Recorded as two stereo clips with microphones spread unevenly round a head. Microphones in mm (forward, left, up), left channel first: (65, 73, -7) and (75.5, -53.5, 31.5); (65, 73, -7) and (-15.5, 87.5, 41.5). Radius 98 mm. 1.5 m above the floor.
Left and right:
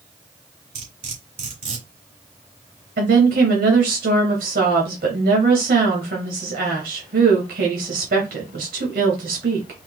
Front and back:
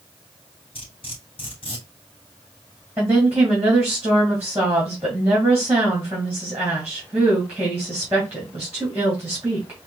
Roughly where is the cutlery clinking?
Right.